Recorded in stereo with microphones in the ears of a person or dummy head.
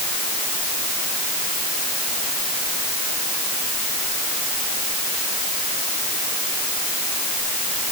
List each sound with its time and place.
Only background noise.